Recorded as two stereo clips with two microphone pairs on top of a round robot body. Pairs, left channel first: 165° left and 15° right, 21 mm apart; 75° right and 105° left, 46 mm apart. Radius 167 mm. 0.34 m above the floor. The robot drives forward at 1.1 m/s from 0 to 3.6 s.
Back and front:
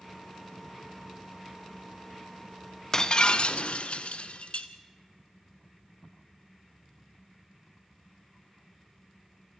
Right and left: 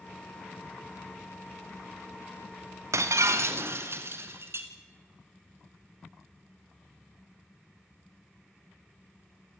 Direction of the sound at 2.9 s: 100° left.